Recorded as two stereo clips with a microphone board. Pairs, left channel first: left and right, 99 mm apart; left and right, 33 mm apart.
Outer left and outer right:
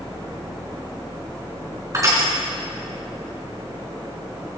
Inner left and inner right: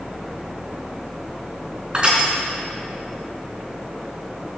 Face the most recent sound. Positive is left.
turn(degrees=-30)  # may be behind; listen again after turning